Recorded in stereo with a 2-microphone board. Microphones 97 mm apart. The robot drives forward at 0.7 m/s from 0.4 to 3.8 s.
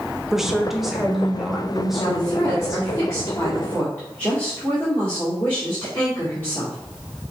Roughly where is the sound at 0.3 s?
Centre.